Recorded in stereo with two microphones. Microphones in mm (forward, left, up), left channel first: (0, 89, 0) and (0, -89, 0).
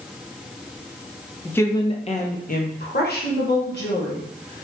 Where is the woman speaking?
5° left (ahead or behind), 0.5 m; by 4.6 s 75° left (ahead or behind), 1.8 m.